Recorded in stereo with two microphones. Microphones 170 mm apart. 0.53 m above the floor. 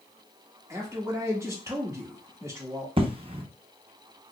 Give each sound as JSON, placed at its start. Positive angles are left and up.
{"t": 0.7, "sound": "a man speaking", "side_deg": -15, "distance_m": 1.2}
{"t": 3.0, "sound": "an explosion", "side_deg": -30, "distance_m": 0.6}